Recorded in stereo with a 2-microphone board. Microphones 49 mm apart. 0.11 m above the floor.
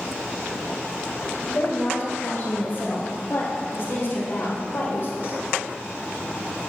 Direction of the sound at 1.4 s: 30° left (ahead or behind).